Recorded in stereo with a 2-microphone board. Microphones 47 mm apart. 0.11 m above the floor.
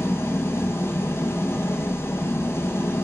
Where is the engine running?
65° left (ahead or behind), 1.2 m.